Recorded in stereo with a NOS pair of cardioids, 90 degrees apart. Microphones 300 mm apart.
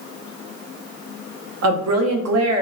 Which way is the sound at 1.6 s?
60° right.